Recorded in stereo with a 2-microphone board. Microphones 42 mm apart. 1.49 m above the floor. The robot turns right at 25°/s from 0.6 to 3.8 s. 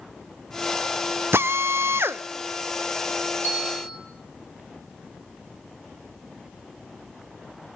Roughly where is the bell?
Right.